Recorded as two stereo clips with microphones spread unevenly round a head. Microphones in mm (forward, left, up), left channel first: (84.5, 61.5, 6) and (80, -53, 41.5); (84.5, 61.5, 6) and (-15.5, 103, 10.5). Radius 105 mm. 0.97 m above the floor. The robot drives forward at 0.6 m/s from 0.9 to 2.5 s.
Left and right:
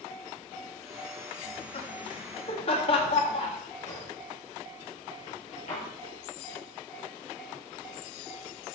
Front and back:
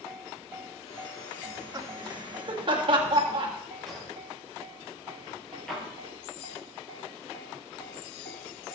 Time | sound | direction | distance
1.4 | laughter | 100° left | 1.9 m
3.9 | a drawer | 65° left | 5.5 m